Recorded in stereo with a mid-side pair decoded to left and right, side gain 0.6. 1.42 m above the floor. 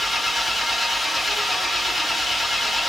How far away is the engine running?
About 1.8 m.